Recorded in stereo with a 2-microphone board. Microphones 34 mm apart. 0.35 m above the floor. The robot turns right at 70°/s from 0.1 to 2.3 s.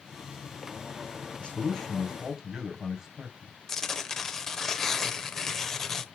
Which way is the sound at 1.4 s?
135° left.